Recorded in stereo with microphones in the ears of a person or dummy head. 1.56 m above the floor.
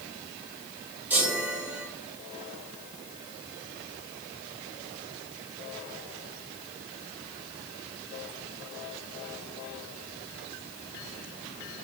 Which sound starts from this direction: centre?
A chime, at 1.1 s.